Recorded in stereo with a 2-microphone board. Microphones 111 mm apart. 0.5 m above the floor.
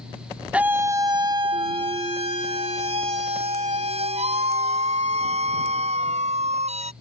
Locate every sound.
0.5 s a scream: 10° right (ahead or behind); by 6.9 s 80° right